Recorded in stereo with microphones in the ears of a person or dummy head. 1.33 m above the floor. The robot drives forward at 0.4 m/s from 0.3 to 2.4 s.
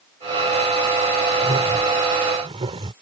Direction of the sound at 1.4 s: 25° right (ahead or behind).